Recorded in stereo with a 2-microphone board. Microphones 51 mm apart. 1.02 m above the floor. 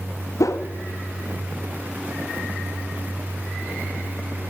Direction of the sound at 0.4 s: 85° left.